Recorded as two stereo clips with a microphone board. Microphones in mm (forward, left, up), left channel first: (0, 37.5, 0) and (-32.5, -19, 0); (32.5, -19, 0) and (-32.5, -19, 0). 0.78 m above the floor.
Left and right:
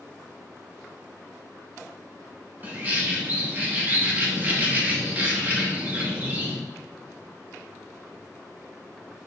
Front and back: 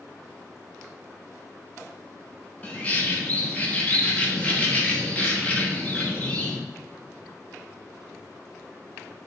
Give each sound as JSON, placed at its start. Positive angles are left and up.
{"t": 2.6, "sound": "a bird", "azimuth_deg": -65, "distance_m": 0.8}